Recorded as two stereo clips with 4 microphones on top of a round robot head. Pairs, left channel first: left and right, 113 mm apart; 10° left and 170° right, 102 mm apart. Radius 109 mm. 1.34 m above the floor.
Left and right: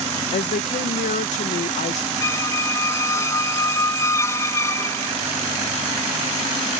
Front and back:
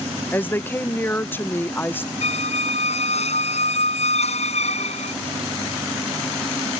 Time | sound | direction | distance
0.3 | a woman speaking | 85° left | ?
2.2 | a squeak | 25° left | ?